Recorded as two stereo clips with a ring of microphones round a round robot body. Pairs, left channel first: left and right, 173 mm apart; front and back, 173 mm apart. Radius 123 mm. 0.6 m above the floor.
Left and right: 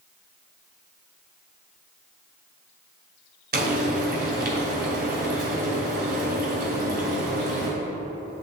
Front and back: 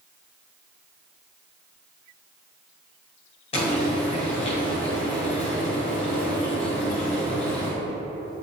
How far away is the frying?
About 2.5 m.